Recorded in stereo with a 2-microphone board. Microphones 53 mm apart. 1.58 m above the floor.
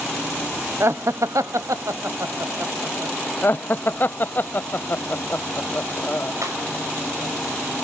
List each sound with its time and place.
0.8 s laughter: 55° right (ahead or behind), 0.8 m; by 3.2 s 50° right (ahead or behind), 1.6 m
3.4 s laughter: 40° left (ahead or behind), 0.6 m
6.4 s breaking glass: 80° right, 5.5 m